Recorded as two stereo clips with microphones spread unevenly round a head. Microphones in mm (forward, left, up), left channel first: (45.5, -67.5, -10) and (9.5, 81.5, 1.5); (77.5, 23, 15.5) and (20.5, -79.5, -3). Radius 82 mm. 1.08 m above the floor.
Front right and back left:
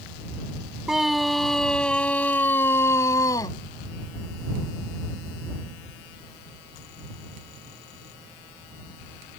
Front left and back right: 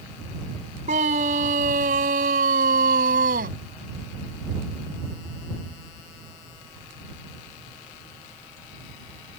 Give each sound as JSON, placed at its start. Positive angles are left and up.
{"t": 0.9, "sound": "a scream", "azimuth_deg": -170}